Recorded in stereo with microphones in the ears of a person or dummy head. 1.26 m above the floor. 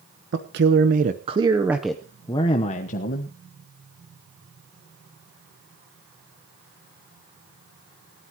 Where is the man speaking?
60° right (ahead or behind), 1.4 m; by 3.3 s 50° left (ahead or behind), 1.5 m.